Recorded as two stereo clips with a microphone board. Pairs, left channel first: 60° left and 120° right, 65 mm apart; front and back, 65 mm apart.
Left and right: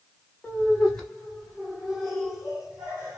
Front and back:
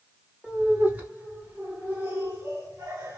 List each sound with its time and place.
0.4 s laughter: 125° left, 1.7 m; by 3.2 s 170° left, 2.5 m